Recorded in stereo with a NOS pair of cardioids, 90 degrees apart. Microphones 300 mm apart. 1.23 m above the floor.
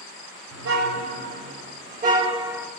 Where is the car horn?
65° right, 2.5 m; by 2.7 s straight ahead, 1.2 m.